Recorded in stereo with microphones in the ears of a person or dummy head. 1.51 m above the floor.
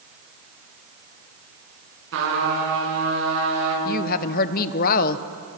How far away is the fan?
I don't hear a fan.